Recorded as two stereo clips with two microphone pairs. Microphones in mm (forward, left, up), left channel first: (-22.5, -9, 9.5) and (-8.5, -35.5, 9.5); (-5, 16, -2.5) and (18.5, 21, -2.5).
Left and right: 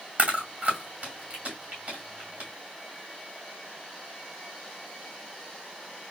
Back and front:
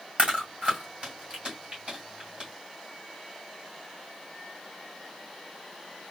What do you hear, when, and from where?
0.2 s chewing: 25° right, 2.5 m